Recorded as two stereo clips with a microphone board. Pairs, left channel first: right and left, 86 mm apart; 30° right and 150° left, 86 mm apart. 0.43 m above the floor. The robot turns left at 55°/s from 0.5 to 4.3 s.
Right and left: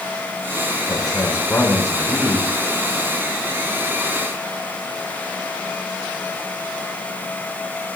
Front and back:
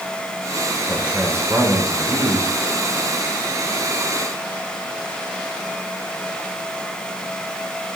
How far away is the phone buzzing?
I don't hear a phone buzzing.